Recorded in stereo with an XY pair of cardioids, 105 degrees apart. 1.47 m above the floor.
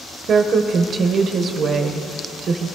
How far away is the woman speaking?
About 0.9 m.